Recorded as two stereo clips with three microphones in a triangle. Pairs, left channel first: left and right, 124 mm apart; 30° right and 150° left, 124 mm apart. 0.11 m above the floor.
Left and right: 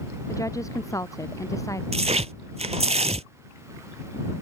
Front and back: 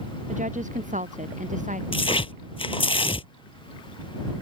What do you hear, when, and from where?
0.3 s a woman speaking: 155° left
1.9 s tearing paper: 70° right